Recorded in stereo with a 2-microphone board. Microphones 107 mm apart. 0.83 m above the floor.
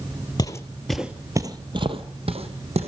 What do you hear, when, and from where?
0.4 s footsteps: 35° left (ahead or behind), 1.0 m; by 2.9 s 65° right (ahead or behind), 2 m